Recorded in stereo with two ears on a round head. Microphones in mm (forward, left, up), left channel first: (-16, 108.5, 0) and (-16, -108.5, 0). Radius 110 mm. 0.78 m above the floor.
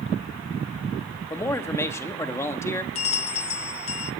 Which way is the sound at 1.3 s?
10° left (ahead or behind).